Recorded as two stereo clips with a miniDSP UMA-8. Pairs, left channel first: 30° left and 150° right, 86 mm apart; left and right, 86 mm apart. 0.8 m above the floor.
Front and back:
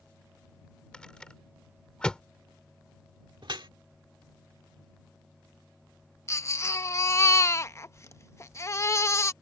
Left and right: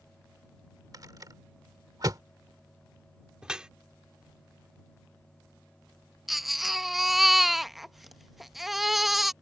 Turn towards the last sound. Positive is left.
turn(degrees=-5)